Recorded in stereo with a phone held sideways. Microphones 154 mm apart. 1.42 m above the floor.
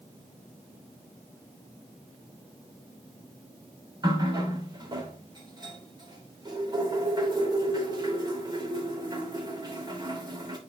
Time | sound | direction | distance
4.0 | a running tap | 30° right (ahead or behind) | 3 m